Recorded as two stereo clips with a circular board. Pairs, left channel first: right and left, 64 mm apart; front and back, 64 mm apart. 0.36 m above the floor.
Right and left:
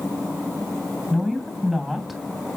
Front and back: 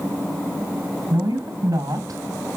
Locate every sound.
1.1 s a woman speaking: 175° left, 3 m